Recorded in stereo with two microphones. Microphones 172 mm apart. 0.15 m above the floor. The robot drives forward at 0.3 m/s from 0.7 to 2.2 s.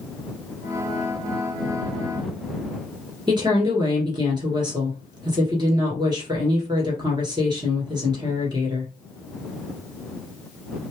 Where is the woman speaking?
25° right (ahead or behind), 1.9 m.